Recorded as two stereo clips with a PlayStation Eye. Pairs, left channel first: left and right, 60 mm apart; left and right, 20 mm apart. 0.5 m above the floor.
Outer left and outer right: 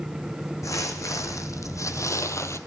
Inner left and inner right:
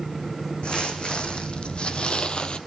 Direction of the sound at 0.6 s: 65° left (ahead or behind).